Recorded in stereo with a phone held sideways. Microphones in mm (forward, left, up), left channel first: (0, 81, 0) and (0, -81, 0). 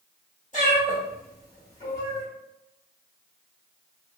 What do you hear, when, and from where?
0.5 s a cat meowing: 50° left (ahead or behind), 1.3 m